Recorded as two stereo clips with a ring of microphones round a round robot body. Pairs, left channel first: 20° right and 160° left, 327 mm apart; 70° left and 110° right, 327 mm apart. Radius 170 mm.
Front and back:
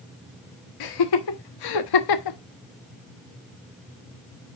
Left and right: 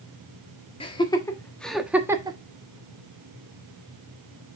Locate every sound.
0.8 s laughter: 5° right, 1.5 m; by 2.4 s 40° right, 1.1 m